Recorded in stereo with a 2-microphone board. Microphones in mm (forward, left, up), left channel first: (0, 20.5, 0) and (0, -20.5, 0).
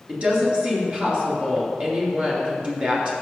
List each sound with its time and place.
0.1 s a woman speaking: 30° right (ahead or behind), 3 m